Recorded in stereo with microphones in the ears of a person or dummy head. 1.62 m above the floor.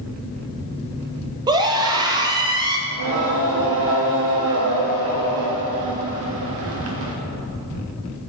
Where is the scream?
20° right (ahead or behind), 0.7 m.